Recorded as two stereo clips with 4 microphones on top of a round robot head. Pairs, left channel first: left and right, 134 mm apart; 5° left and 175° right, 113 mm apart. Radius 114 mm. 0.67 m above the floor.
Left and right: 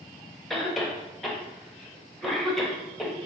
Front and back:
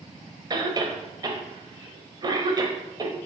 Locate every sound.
0.5 s a cough: straight behind, 1.1 m